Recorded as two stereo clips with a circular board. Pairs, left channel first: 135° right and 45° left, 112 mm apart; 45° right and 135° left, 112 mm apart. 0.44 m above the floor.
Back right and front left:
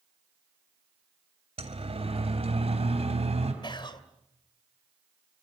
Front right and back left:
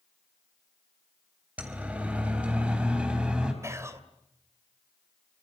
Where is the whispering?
165° right, 2 m.